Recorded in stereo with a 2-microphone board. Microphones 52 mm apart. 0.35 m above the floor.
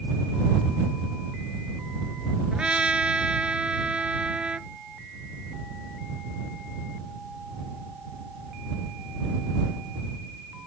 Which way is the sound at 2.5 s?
20° right (ahead or behind).